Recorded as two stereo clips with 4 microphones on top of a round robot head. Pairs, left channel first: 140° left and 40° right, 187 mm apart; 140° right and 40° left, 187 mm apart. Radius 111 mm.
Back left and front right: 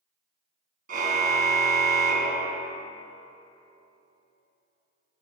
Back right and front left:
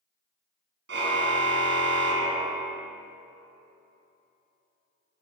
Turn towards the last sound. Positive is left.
turn(degrees=10)